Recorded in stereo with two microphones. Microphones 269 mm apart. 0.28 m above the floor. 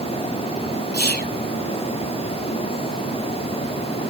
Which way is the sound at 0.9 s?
40° left (ahead or behind).